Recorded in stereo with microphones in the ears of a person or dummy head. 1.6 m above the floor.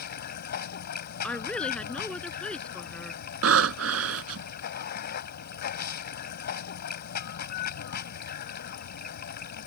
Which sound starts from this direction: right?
Breathing, at 3.4 s.